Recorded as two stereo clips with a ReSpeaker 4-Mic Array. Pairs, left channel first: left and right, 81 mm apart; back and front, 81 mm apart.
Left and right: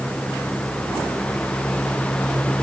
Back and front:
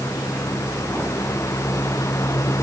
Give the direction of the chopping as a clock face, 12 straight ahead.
No chopping in this recording.